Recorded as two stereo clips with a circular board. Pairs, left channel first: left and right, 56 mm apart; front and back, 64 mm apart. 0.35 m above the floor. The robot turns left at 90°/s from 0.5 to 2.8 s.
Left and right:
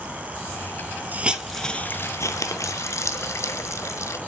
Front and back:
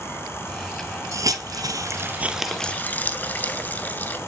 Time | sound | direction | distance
1.1 | a hiss | 145° right | 0.7 m